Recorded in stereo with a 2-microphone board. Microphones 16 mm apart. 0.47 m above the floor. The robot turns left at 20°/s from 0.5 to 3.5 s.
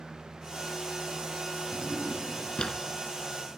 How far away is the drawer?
About 2.5 m.